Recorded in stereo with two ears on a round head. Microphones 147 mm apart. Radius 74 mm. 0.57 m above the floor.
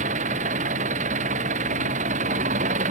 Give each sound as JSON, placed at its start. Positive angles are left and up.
{"t": 0.0, "sound": "an engine running", "side_deg": -45}